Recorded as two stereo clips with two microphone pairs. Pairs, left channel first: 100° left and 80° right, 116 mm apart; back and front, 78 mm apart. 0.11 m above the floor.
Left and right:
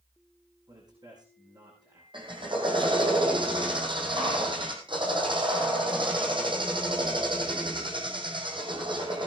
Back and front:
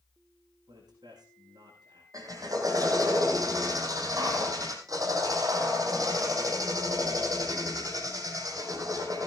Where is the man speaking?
25° right, 7 m.